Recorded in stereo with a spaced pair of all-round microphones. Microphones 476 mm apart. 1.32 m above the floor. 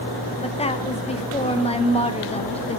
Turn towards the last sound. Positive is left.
turn(degrees=15)  # may be behind; listen again after turning